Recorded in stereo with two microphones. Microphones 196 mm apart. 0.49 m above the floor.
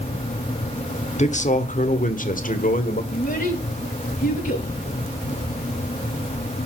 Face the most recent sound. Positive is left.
turn(degrees=50)  # may be behind; listen again after turning